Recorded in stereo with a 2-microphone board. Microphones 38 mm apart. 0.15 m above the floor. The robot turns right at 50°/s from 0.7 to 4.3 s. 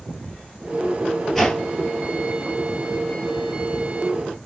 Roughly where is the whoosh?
Centre.